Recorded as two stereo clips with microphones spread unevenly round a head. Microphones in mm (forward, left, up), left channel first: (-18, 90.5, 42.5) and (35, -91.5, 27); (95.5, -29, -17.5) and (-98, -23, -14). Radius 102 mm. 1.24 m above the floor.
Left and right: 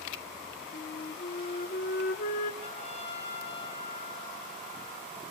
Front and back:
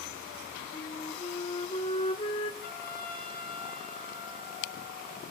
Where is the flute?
60° left, 1.4 m.